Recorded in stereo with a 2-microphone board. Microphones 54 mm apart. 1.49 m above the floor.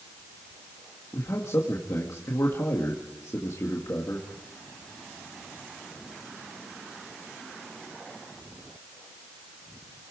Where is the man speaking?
80° left, 2.0 m.